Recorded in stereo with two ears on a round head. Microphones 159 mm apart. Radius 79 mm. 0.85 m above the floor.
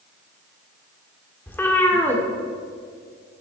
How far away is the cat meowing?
About 1.3 m.